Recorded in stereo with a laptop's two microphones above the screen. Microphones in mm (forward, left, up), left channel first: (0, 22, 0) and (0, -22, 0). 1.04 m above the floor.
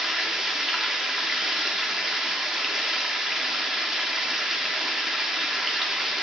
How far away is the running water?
About 0.8 m.